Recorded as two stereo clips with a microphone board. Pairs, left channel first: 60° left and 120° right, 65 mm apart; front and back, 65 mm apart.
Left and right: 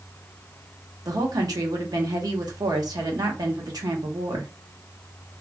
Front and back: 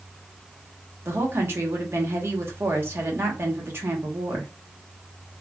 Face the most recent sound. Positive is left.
turn(degrees=-125)